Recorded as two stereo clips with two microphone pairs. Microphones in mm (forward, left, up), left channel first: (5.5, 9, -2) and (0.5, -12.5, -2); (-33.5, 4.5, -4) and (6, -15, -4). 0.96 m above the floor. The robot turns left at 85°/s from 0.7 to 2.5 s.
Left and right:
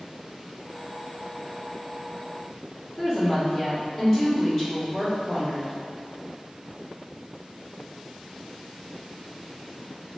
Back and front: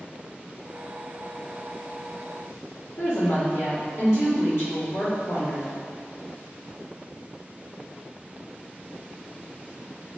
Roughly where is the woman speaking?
Behind.